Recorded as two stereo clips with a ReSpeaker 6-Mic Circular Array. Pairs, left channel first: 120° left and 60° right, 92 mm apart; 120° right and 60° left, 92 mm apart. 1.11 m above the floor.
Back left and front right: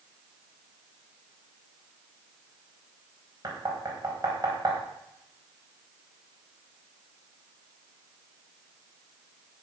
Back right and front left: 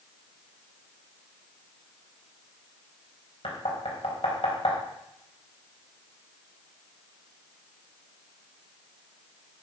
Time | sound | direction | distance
3.4 | knocking | 115° right | 4 m